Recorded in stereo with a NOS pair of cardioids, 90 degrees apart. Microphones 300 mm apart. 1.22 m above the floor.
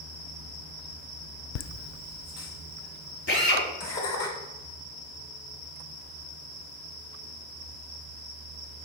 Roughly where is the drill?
Ahead left.